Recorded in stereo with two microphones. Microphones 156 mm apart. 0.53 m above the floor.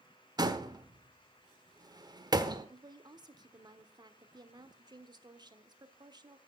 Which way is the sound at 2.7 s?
25° right (ahead or behind).